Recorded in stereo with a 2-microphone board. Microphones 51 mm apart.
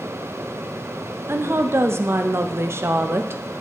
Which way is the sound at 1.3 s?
55° right (ahead or behind).